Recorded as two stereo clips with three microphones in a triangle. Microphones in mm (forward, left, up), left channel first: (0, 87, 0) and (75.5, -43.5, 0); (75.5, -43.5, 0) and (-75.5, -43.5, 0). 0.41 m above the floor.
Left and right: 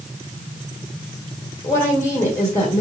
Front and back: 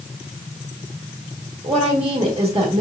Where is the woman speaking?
Straight behind, 1.8 m.